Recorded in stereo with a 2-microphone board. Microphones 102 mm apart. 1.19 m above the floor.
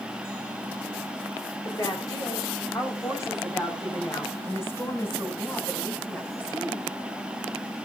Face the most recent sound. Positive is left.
turn(degrees=15)  # may be behind; listen again after turning